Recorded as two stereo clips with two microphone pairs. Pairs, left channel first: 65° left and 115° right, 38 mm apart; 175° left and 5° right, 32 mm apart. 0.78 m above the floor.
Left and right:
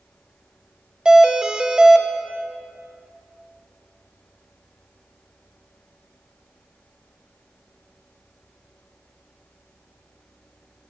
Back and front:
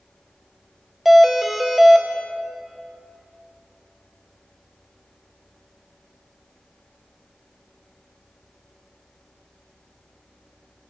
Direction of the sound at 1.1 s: 80° right.